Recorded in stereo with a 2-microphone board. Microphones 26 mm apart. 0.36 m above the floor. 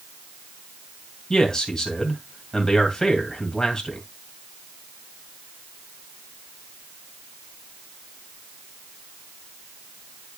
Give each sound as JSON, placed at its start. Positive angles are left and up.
{"t": 1.3, "sound": "a man speaking", "side_deg": 25, "distance_m": 2.5}